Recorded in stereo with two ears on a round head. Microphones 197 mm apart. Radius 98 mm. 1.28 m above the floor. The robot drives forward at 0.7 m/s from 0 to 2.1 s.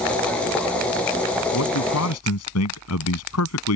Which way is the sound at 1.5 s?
75° left (ahead or behind).